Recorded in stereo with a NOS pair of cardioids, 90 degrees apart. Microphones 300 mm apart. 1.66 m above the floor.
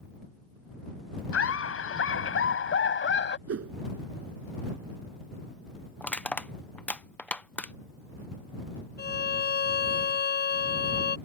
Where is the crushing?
5° left.